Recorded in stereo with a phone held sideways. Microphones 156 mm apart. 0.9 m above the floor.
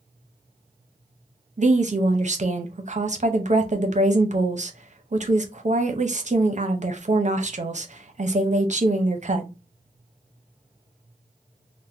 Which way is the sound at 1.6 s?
50° right (ahead or behind).